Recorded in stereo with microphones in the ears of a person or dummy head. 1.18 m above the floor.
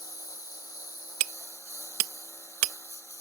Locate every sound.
0.0 s a lawn mower: 25° left (ahead or behind)
1.2 s hammering: 65° right (ahead or behind)